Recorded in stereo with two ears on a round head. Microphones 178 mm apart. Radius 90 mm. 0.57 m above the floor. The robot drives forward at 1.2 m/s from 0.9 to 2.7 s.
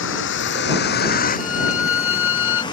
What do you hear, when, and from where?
0.0 s a vehicle: 70° left (ahead or behind); by 2.7 s 20° left (ahead or behind)
1.4 s a violin: 80° left; by 2.6 s 70° left (ahead or behind)